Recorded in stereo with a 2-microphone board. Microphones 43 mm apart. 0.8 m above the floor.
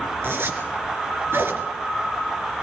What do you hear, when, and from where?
0.2 s a zipper: 65° right (ahead or behind), 3 m